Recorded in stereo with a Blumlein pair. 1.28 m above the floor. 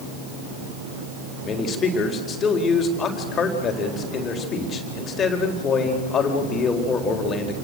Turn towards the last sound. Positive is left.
turn(degrees=25)